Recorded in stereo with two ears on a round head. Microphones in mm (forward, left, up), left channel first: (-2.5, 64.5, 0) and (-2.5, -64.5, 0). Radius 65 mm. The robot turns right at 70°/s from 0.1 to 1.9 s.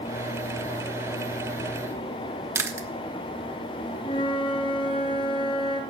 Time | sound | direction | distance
2.5 | chewing | 20° right (ahead or behind) | 0.9 m
4.0 | a flute | 35° left (ahead or behind) | 1.5 m